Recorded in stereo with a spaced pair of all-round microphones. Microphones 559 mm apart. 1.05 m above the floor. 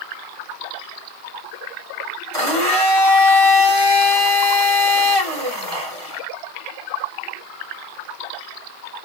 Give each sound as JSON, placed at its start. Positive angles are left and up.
{"t": 2.3, "sound": "a blender", "side_deg": -60, "distance_m": 4.0}